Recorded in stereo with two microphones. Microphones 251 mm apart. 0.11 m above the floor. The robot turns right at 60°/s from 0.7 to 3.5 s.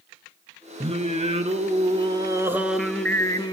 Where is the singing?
25° right (ahead or behind), 0.8 m; by 3.5 s 15° left (ahead or behind), 0.8 m.